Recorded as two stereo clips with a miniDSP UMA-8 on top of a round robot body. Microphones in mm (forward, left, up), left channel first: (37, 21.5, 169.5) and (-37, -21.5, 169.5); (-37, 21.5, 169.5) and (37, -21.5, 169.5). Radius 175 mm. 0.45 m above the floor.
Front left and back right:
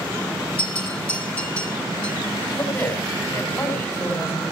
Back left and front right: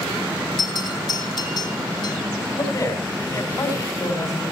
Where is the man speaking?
100° left, 5.5 m.